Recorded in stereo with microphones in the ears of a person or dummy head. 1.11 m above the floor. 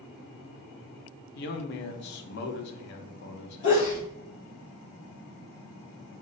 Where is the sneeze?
25° left (ahead or behind), 1.6 m.